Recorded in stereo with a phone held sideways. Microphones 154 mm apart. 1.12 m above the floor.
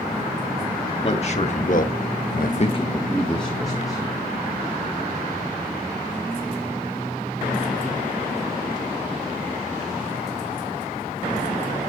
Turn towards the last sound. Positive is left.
turn(degrees=0)  # may be behind; listen again after turning